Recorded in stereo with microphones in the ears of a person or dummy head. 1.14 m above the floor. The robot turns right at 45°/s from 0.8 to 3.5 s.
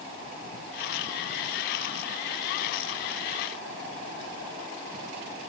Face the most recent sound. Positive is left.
No sound to turn to.